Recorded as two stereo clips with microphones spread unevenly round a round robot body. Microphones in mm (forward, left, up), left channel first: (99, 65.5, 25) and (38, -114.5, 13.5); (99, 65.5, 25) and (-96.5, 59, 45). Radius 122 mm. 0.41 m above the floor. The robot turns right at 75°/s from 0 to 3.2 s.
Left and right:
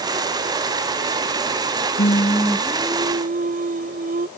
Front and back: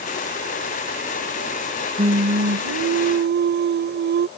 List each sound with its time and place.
2.0 s singing: 120° left; by 4.3 s 150° right